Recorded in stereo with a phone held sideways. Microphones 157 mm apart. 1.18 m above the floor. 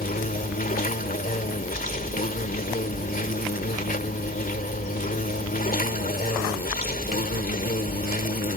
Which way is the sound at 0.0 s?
65° left (ahead or behind).